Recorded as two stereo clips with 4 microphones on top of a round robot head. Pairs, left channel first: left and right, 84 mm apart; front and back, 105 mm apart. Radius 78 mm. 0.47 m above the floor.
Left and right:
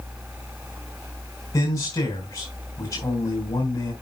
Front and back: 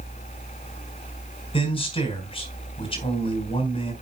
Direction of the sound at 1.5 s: 30° left.